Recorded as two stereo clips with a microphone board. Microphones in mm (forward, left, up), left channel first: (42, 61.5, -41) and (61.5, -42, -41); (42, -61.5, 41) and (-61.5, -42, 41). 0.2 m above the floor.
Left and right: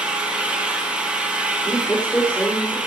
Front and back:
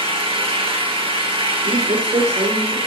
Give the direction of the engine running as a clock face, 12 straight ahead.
5 o'clock.